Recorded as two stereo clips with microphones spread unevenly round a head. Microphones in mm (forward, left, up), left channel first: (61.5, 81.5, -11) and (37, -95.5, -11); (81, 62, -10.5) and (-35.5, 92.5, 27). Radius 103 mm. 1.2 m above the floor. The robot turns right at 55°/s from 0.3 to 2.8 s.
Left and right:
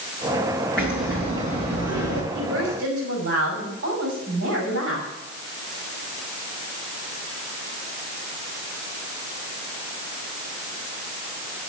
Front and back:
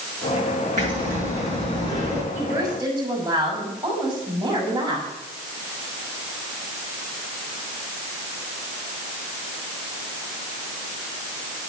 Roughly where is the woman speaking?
Behind right.